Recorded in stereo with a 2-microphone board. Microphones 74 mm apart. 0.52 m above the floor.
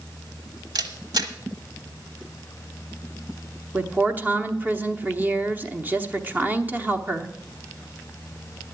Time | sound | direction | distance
0.8 | a camera shutter | 65° right (ahead or behind) | 1.1 m
3.7 | a woman speaking | 25° right (ahead or behind) | 0.9 m